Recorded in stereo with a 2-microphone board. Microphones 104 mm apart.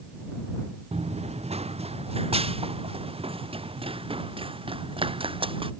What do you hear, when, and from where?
0.9 s running footsteps: 85° right; by 5.7 s 60° right (ahead or behind)